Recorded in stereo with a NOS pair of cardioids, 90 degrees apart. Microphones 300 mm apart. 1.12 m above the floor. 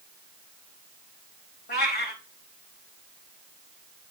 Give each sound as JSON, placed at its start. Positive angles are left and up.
{"t": 1.7, "sound": "a cat meowing", "azimuth_deg": 35, "distance_m": 3.5}